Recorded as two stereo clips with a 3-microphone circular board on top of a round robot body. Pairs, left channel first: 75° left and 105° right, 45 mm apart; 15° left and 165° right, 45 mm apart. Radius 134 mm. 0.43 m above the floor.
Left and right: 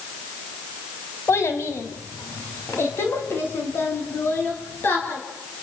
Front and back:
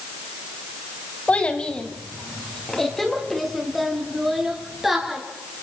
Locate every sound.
1.3 s a child speaking: 75° left, 3.5 m; by 5.2 s 110° left, 8.5 m